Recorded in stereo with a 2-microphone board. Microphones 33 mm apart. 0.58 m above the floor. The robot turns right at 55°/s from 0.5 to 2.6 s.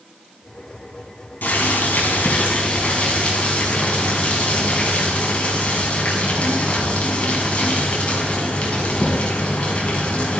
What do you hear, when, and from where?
1.4 s boiling: 75° left, 6.5 m; by 10.4 s 140° left, 6.5 m